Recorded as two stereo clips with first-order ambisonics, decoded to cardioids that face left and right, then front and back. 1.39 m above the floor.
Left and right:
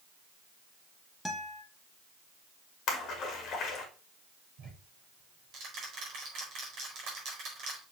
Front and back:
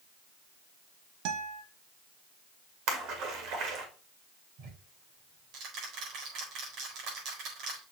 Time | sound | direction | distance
1.2 | a guitar | 175° left | 1.1 m
2.9 | a splash | 145° left | 1.9 m
4.6 | ticking | 140° right | 4 m